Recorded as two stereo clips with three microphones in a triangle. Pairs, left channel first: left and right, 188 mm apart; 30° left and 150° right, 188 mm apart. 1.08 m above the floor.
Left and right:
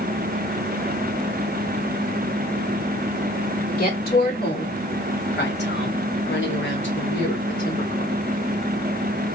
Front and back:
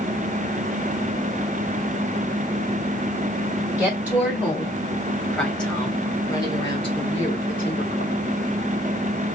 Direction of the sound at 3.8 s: 130° left.